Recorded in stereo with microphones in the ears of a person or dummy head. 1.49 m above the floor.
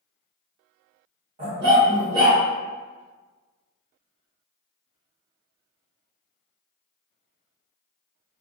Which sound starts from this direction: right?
A dog barking, at 1.4 s.